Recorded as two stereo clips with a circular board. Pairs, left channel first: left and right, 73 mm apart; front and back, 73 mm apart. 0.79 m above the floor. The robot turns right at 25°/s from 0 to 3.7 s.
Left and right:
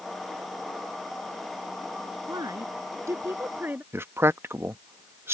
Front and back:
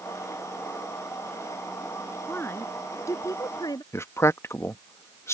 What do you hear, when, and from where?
2.3 s a woman speaking: 60° right; by 3.8 s 25° right
3.9 s a man speaking: 40° right